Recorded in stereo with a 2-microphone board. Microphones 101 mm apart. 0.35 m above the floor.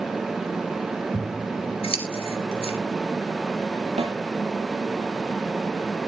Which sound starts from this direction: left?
Scissors, at 1.1 s.